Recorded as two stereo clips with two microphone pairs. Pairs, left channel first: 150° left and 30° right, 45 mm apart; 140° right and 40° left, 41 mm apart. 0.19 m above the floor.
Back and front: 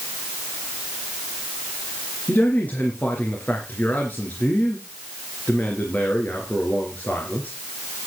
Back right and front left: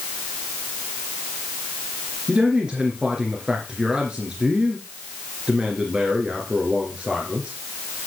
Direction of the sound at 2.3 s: 105° left.